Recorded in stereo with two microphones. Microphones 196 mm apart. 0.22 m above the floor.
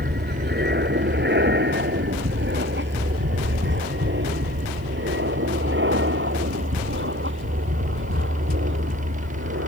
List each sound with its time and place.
0.0 s an aircraft: 55° right (ahead or behind); by 9.7 s 75° right (ahead or behind)